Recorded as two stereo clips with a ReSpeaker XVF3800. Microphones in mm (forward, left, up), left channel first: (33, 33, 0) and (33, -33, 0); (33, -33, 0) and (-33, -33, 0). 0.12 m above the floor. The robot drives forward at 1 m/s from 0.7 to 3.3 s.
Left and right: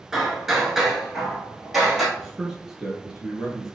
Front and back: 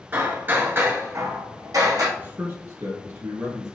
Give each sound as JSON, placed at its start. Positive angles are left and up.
{"t": 0.1, "sound": "hammering", "azimuth_deg": -165, "distance_m": 1.0}
{"t": 2.2, "sound": "a man speaking", "azimuth_deg": -160, "distance_m": 1.3}